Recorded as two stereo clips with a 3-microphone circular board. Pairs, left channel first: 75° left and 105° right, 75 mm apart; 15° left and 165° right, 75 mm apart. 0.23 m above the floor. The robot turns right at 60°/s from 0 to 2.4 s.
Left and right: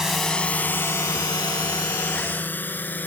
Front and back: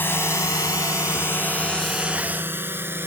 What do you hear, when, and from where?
0.0 s a drone: 30° right; by 3.1 s 135° left